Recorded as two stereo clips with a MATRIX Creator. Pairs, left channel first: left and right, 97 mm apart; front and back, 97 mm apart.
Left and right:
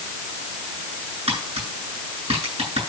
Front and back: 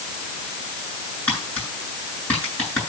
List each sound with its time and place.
1.3 s tapping: 75° right, 8.5 m